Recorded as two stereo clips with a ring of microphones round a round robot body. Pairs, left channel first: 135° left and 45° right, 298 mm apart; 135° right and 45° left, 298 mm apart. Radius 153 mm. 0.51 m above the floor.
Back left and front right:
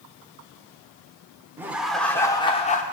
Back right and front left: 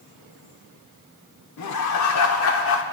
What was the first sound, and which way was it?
Laughter, 125° right.